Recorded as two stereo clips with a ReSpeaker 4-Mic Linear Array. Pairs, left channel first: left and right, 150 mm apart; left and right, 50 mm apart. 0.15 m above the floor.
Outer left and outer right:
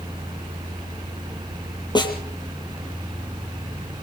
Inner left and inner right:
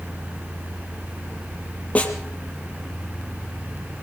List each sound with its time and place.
1.9 s a snare drum: 30° left (ahead or behind), 4 m